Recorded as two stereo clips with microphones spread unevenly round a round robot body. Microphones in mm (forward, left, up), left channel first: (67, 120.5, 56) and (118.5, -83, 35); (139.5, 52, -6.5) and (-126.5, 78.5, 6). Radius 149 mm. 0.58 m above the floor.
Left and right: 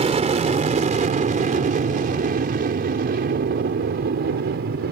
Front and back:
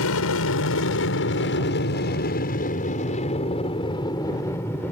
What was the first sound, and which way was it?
An aircraft, 25° right.